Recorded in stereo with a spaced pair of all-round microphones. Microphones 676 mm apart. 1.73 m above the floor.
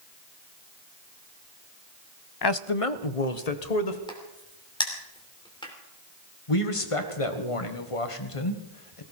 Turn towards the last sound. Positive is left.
turn(degrees=50)  # may be behind; listen again after turning